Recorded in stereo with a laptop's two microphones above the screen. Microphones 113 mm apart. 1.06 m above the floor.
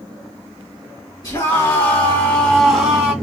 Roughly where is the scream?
Left.